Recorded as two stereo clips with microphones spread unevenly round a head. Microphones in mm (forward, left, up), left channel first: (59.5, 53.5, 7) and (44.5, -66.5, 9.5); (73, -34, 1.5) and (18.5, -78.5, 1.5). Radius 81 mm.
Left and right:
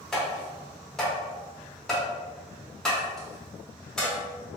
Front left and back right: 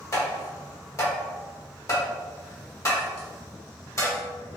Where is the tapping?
5° right, 1.1 m.